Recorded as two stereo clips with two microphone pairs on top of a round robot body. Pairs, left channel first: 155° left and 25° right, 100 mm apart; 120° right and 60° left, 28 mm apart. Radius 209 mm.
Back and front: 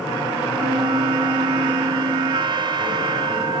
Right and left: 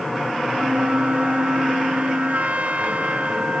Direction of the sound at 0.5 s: 20° left.